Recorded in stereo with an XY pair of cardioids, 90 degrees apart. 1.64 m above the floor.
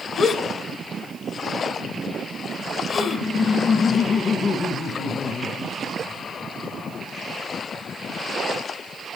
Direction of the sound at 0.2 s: 65° left.